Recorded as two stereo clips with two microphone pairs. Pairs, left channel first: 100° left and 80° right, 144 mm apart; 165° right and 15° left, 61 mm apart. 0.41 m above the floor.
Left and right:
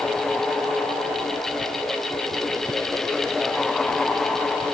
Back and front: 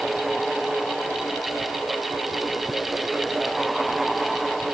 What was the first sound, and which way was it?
Only background noise.